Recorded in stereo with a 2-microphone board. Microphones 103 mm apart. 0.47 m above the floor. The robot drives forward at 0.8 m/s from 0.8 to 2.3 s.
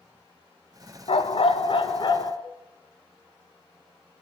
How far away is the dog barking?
About 1.2 m.